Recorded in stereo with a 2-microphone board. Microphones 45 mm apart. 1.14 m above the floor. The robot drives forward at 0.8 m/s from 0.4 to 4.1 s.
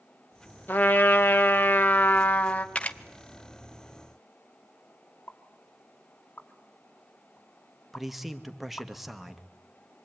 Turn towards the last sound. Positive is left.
turn(degrees=-5)  # may be behind; listen again after turning